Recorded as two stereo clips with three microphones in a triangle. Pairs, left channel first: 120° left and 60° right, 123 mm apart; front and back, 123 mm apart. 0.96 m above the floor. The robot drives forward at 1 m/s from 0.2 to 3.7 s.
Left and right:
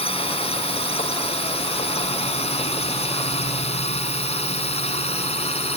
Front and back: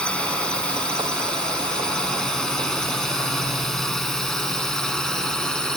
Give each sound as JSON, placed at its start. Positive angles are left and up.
{"t": 0.0, "sound": "a drone", "azimuth_deg": 80}